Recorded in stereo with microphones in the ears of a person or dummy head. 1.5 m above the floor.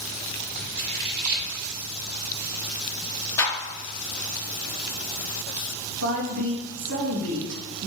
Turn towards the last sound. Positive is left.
turn(degrees=-80)